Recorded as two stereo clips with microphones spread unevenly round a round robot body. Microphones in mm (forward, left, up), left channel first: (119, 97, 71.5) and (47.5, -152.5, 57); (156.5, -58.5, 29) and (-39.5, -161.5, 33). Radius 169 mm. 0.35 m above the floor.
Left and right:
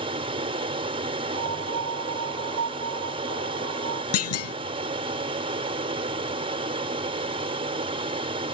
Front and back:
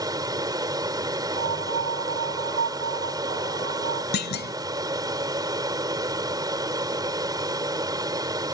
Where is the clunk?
65° left.